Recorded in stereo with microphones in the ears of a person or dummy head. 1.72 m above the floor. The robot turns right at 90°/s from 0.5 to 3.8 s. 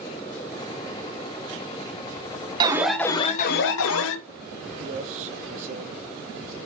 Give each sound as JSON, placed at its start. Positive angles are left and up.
{"t": 2.6, "sound": "an alarm", "azimuth_deg": -25, "distance_m": 1.0}
{"t": 4.8, "sound": "a man speaking", "side_deg": -45, "distance_m": 1.0}